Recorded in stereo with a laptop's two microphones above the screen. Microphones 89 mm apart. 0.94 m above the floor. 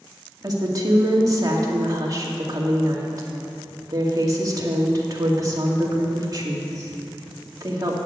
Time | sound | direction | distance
0.4 | a woman speaking | 40° right (ahead or behind) | 2 m